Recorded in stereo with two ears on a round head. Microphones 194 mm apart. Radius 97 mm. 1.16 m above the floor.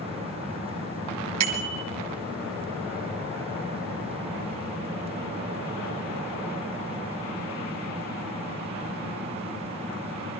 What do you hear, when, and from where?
1.4 s a bicycle bell: 85° right, 3.5 m